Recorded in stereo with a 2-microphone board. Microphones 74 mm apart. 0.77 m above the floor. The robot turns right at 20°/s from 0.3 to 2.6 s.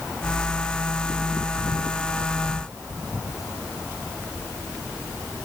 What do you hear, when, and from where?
Only background noise.